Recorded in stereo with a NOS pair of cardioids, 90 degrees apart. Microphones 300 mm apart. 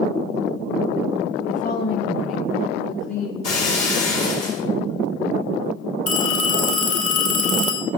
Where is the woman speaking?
20° left, 1.2 m; by 3.3 s 70° left, 3 m.